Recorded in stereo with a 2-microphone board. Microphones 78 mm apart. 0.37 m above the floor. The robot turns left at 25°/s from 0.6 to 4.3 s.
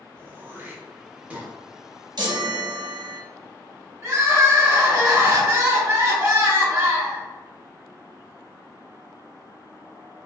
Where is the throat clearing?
20° right (ahead or behind), 0.6 m; by 1.5 s 15° right (ahead or behind), 0.6 m.